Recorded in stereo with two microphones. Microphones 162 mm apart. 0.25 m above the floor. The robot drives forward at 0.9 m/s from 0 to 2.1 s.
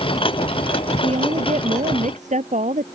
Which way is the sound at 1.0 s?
40° right (ahead or behind).